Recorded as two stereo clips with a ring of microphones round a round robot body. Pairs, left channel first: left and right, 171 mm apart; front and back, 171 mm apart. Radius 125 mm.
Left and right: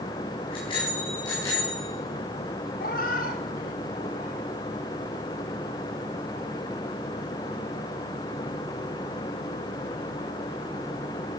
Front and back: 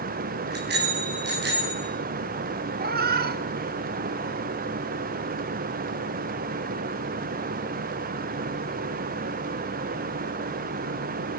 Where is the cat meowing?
150° left, 1.0 m.